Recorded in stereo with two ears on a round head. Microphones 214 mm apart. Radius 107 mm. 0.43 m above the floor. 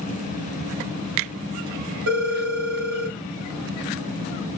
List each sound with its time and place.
2.1 s a phone ringing: 70° right (ahead or behind), 1.7 m